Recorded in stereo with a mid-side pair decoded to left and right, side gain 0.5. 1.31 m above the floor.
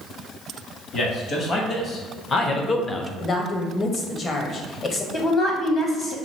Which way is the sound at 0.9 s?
50° left.